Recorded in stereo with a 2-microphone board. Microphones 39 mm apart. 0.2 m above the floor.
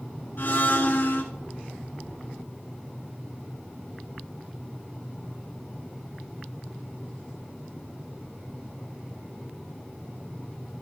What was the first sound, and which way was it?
A blender, 65° left (ahead or behind).